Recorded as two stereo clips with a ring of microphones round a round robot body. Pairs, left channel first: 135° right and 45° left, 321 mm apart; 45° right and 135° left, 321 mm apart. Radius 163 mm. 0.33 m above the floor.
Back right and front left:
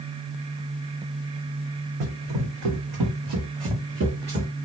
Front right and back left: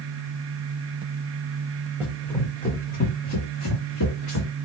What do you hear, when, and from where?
2.0 s running footsteps: 50° left, 1.4 m; by 4.5 s 20° right, 1.9 m